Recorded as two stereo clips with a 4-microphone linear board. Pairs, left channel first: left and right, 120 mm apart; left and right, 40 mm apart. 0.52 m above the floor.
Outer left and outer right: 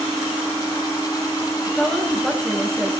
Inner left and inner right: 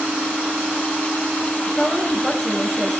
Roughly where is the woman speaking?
Centre.